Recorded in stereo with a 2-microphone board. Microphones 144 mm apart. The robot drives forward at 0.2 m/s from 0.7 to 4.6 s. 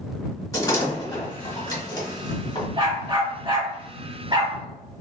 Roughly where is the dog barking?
Right.